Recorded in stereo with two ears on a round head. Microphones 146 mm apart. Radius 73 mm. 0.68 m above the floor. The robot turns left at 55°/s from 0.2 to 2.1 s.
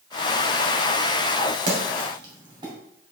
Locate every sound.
1.7 s a splash: 55° right (ahead or behind), 2.5 m; by 2.7 s 30° right (ahead or behind), 2.5 m